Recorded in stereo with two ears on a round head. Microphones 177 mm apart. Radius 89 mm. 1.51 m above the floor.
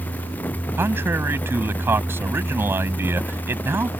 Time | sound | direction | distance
0.8 | a man speaking | 10° right (ahead or behind) | ?